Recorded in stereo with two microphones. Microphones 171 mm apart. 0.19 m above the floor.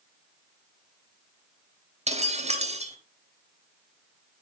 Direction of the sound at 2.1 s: 40° right (ahead or behind).